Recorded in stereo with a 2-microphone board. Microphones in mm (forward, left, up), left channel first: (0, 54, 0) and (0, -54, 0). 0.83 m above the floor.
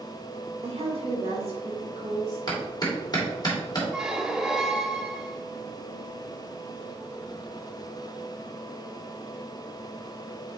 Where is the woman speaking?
70° right (ahead or behind), 2 m; by 2.4 s 40° right (ahead or behind), 2 m.